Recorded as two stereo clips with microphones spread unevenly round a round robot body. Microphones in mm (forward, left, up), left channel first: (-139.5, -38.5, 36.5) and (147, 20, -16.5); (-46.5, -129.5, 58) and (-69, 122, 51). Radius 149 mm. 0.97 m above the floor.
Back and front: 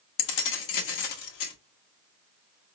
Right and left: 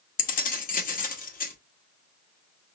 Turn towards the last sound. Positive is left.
turn(degrees=-145)